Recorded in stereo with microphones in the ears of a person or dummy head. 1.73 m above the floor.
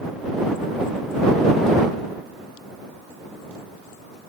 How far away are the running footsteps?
No running footsteps in this recording.